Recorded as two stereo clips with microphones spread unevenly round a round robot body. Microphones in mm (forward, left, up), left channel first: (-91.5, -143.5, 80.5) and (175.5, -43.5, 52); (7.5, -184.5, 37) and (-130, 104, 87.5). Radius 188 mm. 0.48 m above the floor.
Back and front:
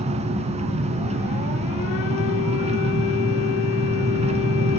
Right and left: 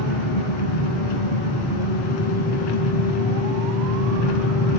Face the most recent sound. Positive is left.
turn(degrees=-50)